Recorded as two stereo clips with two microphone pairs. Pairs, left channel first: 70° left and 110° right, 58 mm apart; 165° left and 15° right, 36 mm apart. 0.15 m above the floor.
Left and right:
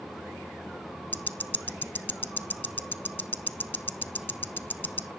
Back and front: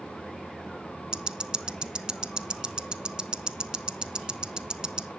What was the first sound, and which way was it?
Ticking, 35° left.